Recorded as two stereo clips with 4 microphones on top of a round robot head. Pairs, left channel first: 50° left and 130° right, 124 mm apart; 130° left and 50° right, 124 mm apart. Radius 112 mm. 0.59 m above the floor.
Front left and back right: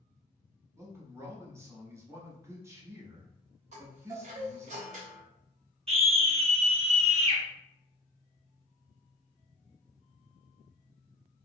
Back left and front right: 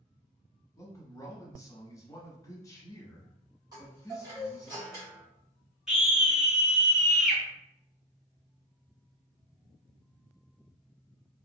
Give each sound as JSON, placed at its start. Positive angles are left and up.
{"t": 0.8, "sound": "a man speaking", "azimuth_deg": 175, "distance_m": 1.1}
{"t": 3.7, "sound": "a chime", "azimuth_deg": -105, "distance_m": 1.7}
{"t": 5.9, "sound": "a scream", "azimuth_deg": -130, "distance_m": 1.3}